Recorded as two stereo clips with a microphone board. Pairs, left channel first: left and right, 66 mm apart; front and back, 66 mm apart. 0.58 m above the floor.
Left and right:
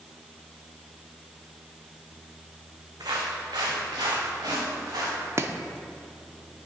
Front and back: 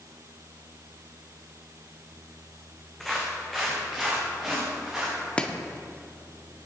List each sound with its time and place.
3.0 s footsteps: 85° right, 2.5 m; by 5.3 s 95° right, 5 m
5.4 s chopping: 70° right, 0.7 m